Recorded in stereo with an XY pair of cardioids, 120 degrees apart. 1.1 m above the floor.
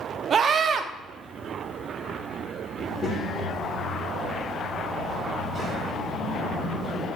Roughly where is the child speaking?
Ahead left.